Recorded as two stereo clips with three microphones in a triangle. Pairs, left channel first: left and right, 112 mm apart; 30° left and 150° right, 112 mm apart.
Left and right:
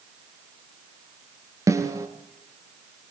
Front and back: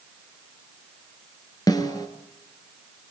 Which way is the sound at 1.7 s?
30° right.